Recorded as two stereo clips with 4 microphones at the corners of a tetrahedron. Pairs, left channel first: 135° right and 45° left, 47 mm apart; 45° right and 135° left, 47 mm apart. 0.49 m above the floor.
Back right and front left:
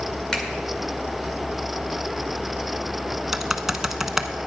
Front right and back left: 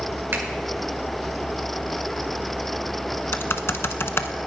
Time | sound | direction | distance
0.3 | a finger snap | 150° left | 1.8 m
3.3 | typing on a keyboard | 35° right | 0.7 m